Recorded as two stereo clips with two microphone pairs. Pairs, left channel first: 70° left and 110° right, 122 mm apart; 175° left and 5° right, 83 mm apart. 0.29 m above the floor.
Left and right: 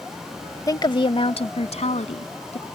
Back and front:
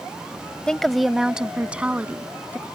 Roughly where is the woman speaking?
Left.